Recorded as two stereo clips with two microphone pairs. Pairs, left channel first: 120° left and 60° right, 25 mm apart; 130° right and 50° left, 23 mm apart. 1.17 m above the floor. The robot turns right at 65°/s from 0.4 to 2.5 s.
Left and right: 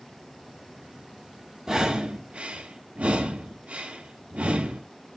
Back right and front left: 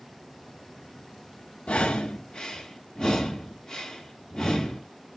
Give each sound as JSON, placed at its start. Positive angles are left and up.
{"t": 1.7, "sound": "breathing", "azimuth_deg": -130, "distance_m": 1.7}